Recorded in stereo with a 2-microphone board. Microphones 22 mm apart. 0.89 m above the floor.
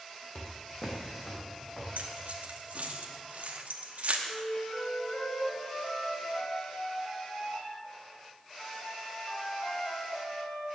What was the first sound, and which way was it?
Footsteps, 50° left (ahead or behind).